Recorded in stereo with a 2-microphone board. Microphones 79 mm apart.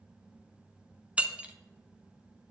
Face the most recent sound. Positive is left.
turn(degrees=-15)  # may be behind; listen again after turning